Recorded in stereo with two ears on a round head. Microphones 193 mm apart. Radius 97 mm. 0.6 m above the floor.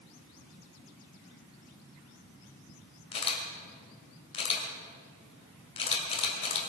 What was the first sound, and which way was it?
A camera shutter, 25° left (ahead or behind).